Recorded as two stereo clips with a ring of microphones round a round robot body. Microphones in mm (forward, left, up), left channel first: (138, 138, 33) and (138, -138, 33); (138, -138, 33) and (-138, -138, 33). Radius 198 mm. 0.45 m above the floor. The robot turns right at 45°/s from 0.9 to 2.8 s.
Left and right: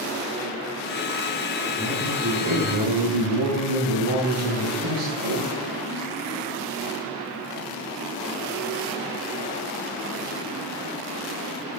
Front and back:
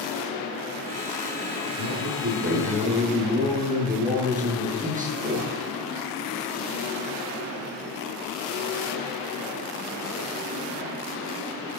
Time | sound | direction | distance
1.8 | a man speaking | 165° right | 9 m